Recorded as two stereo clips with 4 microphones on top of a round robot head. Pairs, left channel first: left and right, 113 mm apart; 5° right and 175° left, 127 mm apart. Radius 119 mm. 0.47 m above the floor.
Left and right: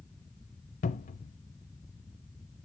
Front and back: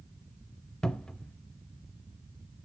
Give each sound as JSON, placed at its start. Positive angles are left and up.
{"t": 0.8, "sound": "a cupboard door", "azimuth_deg": 80, "distance_m": 0.6}